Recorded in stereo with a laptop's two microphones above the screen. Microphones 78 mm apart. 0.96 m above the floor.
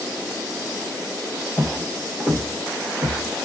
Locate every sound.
1.6 s footsteps: 5° left (ahead or behind), 1.1 m; by 3.5 s 30° right (ahead or behind), 1.0 m